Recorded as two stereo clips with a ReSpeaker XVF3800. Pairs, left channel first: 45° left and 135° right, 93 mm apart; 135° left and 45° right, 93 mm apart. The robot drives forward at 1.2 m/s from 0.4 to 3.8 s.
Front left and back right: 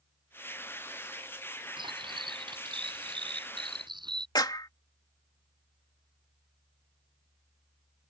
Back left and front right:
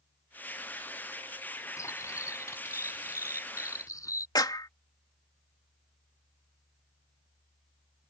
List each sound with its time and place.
1.8 s cutlery clinking: 165° right; by 4.2 s 170° right
4.3 s a clap: 90° left